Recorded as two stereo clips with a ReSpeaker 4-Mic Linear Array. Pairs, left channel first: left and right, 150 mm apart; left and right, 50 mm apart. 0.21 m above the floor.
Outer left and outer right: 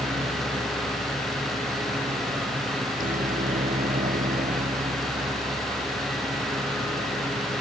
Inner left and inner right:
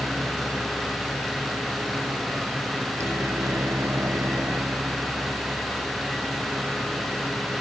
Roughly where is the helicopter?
Right.